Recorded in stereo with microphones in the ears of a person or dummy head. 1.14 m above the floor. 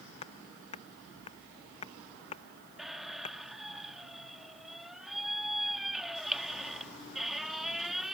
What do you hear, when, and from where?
0.2 s hammering: 35° left (ahead or behind)
2.8 s a squeak: centre (ahead or behind)